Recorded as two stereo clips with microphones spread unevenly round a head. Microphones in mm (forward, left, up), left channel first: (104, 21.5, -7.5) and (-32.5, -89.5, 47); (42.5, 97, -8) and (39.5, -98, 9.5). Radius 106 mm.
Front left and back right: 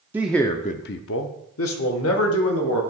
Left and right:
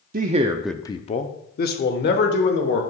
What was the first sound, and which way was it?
A man speaking, 80° right.